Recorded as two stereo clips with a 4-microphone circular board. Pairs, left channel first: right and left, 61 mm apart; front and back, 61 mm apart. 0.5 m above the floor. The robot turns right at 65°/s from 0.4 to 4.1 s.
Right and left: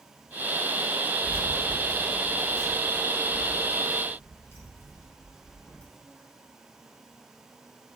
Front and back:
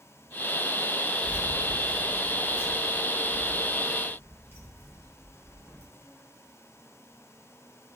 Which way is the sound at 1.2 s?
35° left.